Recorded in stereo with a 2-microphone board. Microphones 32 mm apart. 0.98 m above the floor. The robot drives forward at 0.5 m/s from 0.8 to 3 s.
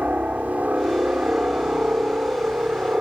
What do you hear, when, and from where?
0.0 s a helicopter: 45° right (ahead or behind); by 3.0 s 40° right (ahead or behind)